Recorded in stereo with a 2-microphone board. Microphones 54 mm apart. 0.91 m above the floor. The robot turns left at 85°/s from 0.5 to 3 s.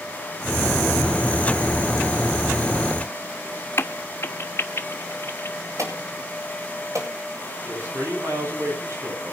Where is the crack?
50° left (ahead or behind), 0.9 m.